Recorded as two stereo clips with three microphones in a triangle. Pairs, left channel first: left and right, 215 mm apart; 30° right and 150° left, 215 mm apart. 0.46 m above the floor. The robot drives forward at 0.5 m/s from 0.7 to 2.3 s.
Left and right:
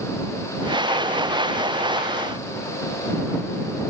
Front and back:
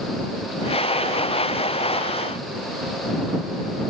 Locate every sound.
Only background noise.